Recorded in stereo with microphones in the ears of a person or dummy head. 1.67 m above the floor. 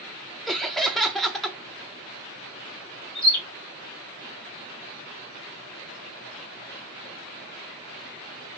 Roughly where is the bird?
Centre.